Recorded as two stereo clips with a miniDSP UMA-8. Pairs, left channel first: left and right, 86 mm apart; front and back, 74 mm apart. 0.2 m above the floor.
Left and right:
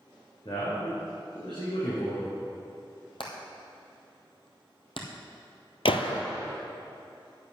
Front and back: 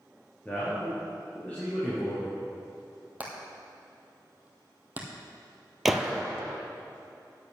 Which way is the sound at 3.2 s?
110° left.